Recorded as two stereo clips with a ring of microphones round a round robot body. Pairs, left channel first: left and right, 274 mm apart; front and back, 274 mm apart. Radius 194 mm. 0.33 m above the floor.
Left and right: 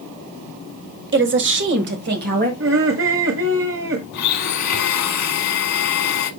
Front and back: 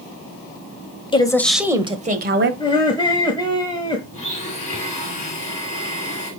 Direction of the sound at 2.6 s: 70° right.